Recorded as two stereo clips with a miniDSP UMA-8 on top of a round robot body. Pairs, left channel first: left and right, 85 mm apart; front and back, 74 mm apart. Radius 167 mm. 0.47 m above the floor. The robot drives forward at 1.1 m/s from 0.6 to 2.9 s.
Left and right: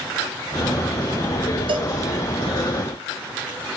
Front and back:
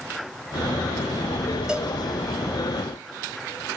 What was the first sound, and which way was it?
A cowbell, 100° right.